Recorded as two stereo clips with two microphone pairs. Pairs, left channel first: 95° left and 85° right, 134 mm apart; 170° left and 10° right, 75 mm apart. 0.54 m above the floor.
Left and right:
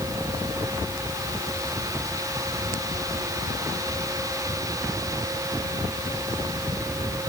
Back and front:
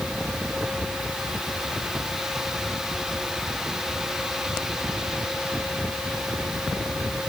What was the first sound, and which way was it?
Only background noise.